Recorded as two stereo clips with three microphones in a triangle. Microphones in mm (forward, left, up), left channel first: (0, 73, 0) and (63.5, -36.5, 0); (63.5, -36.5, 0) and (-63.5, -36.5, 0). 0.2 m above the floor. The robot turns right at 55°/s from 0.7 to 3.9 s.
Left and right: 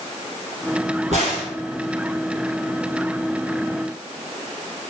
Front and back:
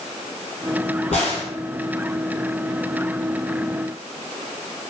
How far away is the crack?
About 1.6 m.